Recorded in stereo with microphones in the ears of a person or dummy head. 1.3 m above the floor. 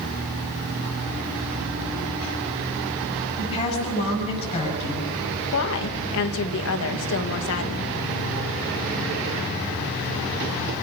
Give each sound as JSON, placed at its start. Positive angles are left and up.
{"t": 3.4, "sound": "a woman speaking", "side_deg": 30, "distance_m": 8.0}
{"t": 5.5, "sound": "a woman speaking", "side_deg": 65, "distance_m": 1.8}